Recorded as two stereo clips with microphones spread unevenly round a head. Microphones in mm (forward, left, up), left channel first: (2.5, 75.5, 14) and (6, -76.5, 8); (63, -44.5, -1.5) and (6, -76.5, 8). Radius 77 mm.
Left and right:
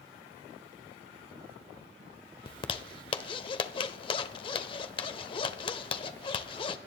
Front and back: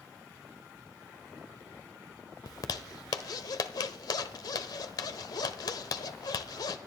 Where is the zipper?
45° left, 0.9 m.